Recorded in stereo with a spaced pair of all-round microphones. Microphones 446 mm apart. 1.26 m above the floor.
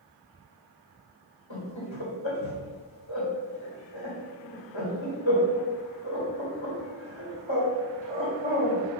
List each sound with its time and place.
1.5 s laughter: 80° left, 1.6 m